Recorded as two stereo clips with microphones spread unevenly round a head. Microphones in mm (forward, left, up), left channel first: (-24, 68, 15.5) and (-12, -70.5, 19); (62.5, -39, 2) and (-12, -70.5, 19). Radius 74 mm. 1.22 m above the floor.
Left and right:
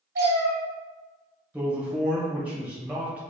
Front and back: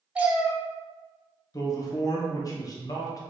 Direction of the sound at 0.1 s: 90° right.